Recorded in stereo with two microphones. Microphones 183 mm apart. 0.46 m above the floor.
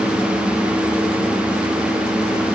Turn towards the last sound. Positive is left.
No sound to turn to.